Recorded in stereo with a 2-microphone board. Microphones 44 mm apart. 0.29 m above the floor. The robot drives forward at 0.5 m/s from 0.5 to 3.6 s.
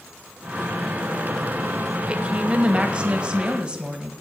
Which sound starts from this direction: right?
A woman speaking, at 2.1 s.